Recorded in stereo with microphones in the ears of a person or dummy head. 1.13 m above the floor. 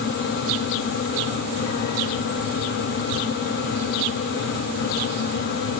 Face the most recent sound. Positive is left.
No sound to turn to.